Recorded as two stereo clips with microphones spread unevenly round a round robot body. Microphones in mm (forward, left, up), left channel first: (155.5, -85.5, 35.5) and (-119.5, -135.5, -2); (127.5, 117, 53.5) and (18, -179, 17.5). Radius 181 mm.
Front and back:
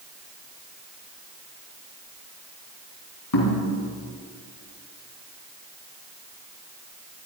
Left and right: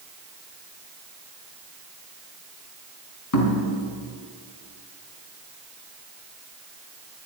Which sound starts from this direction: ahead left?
Knocking, at 3.3 s.